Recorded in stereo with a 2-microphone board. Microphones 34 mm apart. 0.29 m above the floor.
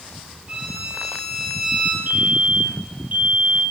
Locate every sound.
0.5 s a violin: 30° right (ahead or behind), 6 m
2.1 s a fire alarm: 50° right (ahead or behind), 3.5 m